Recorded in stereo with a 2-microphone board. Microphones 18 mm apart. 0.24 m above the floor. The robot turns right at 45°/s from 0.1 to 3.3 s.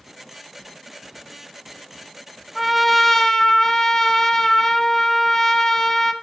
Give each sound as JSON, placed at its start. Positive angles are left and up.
{"t": 2.5, "sound": "a trumpet", "azimuth_deg": 5, "distance_m": 1.2}